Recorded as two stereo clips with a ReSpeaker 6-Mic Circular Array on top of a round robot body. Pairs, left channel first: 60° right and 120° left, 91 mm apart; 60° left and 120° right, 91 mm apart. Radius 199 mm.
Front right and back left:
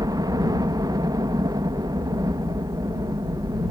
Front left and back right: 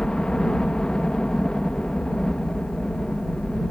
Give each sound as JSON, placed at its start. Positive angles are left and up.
{"t": 0.0, "sound": "a helicopter", "azimuth_deg": 140}